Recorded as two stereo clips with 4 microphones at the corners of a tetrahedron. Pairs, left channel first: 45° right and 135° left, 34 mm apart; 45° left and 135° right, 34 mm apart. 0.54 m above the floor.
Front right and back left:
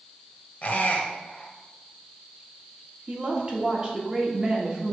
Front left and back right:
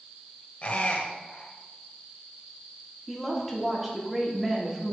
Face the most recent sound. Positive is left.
turn(degrees=140)